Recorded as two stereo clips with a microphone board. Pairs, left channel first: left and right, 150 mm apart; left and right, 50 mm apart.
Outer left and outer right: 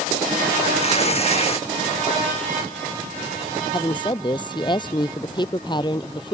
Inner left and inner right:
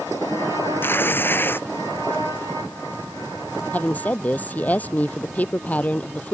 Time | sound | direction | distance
0.8 | tearing paper | 45° left (ahead or behind) | ?
3.7 | a woman speaking | 30° left (ahead or behind) | ?